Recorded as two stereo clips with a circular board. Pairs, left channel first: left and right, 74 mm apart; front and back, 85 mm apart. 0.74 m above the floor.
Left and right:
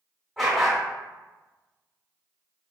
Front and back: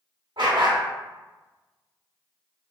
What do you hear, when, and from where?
0.4 s a dog barking: straight behind, 1.2 m